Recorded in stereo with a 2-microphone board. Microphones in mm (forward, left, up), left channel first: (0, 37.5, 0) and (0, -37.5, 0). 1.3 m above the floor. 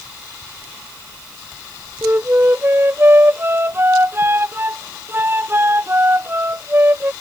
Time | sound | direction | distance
2.0 | a flute | 30° right (ahead or behind) | ?